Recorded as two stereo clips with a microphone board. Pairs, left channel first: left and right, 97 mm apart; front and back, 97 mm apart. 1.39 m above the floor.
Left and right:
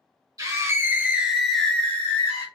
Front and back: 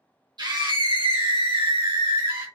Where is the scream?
140° right, 1.1 m; by 2.5 s 145° left, 1.0 m.